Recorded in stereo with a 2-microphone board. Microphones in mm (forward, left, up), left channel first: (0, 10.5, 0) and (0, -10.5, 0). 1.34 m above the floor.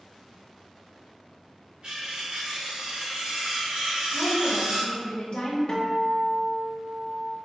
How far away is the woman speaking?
About 1.2 m.